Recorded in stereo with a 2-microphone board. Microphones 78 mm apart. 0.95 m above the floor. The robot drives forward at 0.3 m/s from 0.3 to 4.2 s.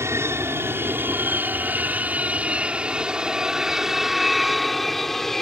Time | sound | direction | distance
0.0 | an aircraft | 35° right (ahead or behind) | ?